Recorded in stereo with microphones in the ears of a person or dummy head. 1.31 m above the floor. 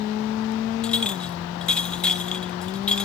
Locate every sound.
0.8 s a clink: 5° left (ahead or behind), 0.8 m